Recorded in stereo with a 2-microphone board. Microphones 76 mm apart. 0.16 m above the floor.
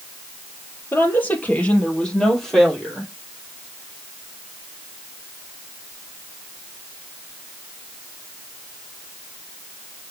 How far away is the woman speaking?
About 3 m.